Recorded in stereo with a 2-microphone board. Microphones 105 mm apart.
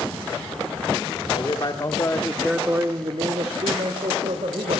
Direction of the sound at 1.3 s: 50° left (ahead or behind).